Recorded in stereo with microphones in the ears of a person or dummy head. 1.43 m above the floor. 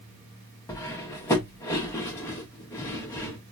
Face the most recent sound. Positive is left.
turn(degrees=10)  # may be behind; listen again after turning